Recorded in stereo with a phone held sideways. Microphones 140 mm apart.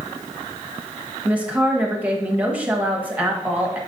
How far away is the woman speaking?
About 1.4 m.